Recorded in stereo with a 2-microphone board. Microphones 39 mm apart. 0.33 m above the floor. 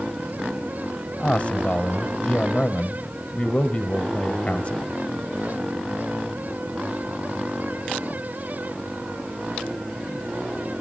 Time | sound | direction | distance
1.2 | a man speaking | 35° left (ahead or behind) | 1.3 m